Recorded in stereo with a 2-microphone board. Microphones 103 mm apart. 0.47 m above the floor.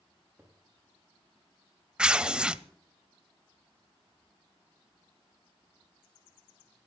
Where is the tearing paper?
10° right (ahead or behind), 0.5 m.